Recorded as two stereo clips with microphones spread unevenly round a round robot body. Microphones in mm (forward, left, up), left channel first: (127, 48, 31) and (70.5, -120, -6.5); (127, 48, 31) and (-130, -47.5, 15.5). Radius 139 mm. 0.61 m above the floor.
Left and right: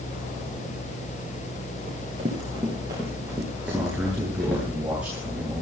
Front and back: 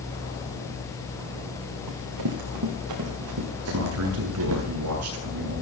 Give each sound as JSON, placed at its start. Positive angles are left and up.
{"t": 1.9, "sound": "running footsteps", "azimuth_deg": -175, "distance_m": 5.0}
{"t": 3.6, "sound": "a man speaking", "azimuth_deg": 165, "distance_m": 7.0}